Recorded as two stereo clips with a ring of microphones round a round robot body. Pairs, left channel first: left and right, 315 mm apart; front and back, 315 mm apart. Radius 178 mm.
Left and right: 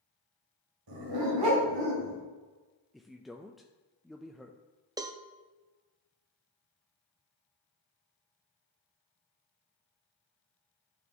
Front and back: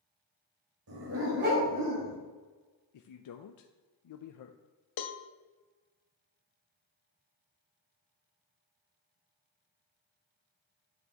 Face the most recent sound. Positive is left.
turn(degrees=-10)